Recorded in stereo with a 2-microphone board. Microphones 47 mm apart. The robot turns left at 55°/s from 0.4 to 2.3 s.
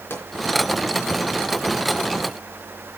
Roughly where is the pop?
Left.